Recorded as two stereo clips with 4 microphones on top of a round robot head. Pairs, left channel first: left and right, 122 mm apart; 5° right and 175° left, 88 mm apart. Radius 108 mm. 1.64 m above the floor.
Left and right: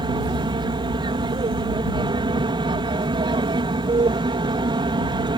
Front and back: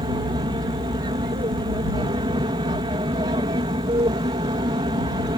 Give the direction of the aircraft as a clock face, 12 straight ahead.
5 o'clock.